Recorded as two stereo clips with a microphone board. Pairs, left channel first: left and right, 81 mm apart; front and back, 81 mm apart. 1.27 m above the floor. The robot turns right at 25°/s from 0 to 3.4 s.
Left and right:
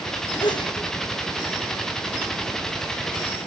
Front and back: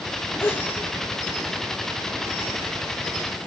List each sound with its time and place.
0.4 s a sneeze: 60° left, 1.3 m; by 0.8 s 70° left, 1.3 m